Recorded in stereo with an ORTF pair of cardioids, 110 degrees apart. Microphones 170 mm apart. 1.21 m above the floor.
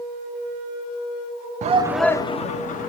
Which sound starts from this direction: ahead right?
A shout, at 1.6 s.